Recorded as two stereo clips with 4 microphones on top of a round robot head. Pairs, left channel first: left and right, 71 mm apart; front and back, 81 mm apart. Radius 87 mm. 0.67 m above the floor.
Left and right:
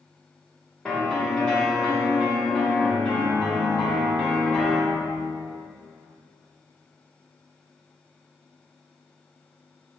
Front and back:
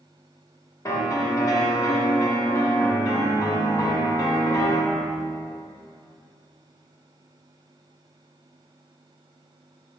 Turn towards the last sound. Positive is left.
turn(degrees=20)